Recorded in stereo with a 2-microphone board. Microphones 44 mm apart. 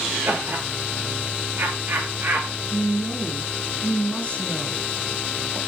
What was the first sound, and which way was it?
Laughter, 60° right (ahead or behind).